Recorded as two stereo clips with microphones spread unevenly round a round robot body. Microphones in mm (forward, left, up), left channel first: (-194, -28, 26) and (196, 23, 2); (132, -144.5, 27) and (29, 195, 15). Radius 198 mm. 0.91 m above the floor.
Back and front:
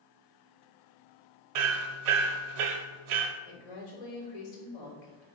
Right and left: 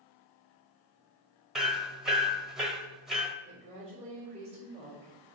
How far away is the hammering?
About 1.3 m.